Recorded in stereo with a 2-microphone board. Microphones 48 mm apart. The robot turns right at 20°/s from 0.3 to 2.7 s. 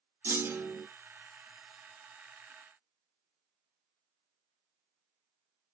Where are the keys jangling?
No keys jangling in this recording.